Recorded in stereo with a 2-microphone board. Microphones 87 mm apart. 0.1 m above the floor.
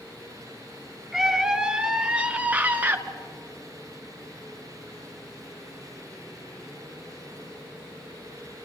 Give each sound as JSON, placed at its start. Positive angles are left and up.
{"t": 1.1, "sound": "a scream", "side_deg": -5, "distance_m": 1.5}